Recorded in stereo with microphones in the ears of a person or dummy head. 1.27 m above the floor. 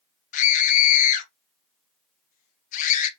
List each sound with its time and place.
0.3 s a scream: 50° left (ahead or behind), 1.0 m